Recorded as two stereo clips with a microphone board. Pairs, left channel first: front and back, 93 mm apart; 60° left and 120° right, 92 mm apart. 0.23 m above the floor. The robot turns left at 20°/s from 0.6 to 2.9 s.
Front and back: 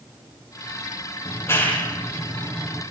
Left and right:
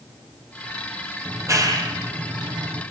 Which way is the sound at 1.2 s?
60° right.